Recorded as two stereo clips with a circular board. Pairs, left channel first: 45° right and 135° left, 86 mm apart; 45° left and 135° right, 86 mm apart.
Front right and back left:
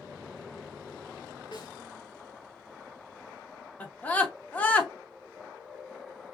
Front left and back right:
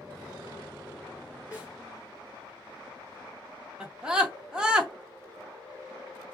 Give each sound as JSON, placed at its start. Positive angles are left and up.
{"t": 1.5, "sound": "a snare drum", "azimuth_deg": -65, "distance_m": 2.5}
{"t": 3.8, "sound": "a scream", "azimuth_deg": -75, "distance_m": 0.6}